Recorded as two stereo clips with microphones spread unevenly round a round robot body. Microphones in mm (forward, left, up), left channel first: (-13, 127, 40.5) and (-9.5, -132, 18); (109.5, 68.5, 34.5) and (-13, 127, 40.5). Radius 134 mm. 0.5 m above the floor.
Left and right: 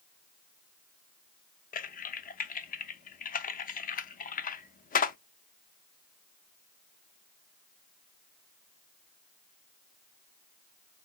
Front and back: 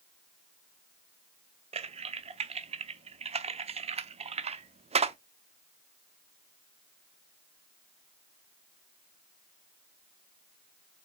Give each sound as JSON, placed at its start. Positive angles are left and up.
{"t": 1.7, "sound": "typing on a keyboard", "azimuth_deg": 140, "distance_m": 0.5}